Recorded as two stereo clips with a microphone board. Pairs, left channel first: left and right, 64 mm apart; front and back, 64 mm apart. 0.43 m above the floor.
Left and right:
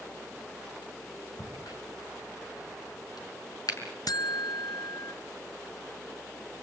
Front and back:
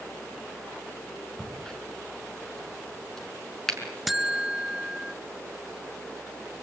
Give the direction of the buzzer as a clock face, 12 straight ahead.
9 o'clock.